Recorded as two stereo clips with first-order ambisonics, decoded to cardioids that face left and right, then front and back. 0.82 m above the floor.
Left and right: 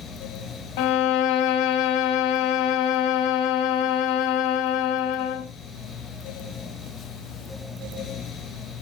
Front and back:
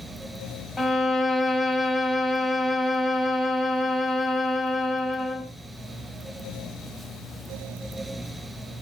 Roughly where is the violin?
Left.